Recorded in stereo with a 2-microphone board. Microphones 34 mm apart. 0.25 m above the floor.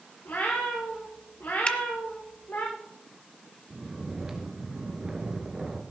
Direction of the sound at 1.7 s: 35° left (ahead or behind).